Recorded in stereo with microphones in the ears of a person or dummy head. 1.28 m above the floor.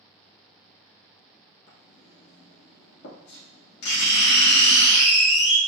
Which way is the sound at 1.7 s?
70° left (ahead or behind).